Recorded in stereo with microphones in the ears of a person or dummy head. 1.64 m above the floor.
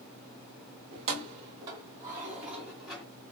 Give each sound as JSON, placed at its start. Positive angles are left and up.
{"t": 0.9, "sound": "keys jangling", "side_deg": -40, "distance_m": 1.1}